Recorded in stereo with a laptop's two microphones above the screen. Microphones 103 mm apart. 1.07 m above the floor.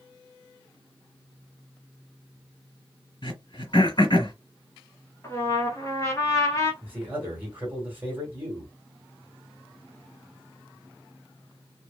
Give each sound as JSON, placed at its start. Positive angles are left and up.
{"t": 3.2, "sound": "throat clearing", "side_deg": 50, "distance_m": 1.7}
{"t": 5.2, "sound": "a trumpet", "side_deg": 30, "distance_m": 1.0}
{"t": 6.8, "sound": "a man speaking", "side_deg": -20, "distance_m": 1.5}